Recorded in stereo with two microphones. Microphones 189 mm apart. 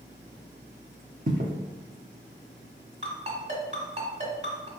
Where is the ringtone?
35° right (ahead or behind), 1.4 m.